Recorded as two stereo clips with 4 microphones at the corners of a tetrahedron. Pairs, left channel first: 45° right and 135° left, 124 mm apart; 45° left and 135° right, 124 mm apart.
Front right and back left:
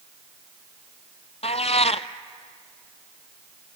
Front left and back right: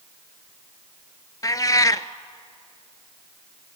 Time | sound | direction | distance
1.4 | a cat meowing | 15° right | 0.6 m